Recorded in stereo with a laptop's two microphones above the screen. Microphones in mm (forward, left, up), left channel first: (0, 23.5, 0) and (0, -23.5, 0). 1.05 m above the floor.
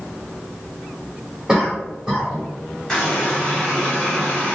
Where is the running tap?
10° left (ahead or behind), 1.5 m.